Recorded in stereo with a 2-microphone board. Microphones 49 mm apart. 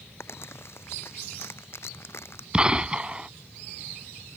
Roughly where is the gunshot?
Right.